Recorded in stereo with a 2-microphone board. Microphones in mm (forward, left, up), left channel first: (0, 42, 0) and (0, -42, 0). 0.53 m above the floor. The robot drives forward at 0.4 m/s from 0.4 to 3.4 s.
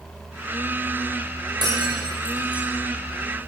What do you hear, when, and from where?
1.6 s breaking glass: 60° right (ahead or behind), 9 m; by 2.7 s 65° right (ahead or behind), 8.5 m